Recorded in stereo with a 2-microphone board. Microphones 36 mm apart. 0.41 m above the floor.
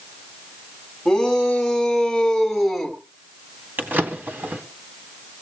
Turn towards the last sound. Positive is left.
turn(degrees=-60)  # may be behind; listen again after turning